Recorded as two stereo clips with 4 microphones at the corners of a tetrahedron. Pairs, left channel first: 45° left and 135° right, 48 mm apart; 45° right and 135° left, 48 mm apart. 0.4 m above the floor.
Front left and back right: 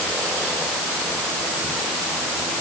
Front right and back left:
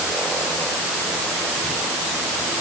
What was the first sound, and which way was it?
Only background noise.